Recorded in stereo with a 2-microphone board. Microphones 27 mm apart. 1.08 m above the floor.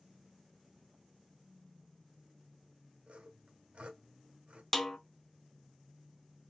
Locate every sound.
3.1 s sawing: 60° right (ahead or behind), 1.5 m
4.7 s a snare drum: 15° left (ahead or behind), 0.7 m